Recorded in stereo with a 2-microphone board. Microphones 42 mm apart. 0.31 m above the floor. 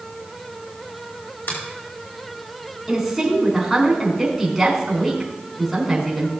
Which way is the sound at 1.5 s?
70° left (ahead or behind).